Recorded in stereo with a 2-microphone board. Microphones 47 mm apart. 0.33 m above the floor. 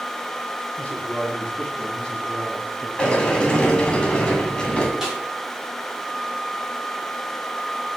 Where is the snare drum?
10° right (ahead or behind), 3 m.